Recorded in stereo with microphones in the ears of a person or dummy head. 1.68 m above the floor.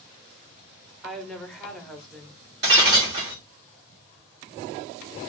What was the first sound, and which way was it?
A woman speaking, centre (ahead or behind).